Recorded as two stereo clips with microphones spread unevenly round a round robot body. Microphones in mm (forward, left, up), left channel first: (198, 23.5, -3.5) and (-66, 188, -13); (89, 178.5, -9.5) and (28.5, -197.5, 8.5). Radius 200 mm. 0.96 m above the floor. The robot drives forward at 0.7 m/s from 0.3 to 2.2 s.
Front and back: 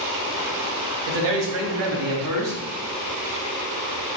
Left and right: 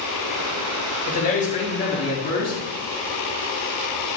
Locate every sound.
1.1 s a man speaking: 150° left, 2 m; by 2.6 s 160° left, 2.5 m